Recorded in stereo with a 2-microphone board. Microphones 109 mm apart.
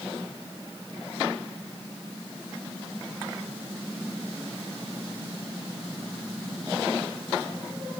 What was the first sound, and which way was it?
Only background noise.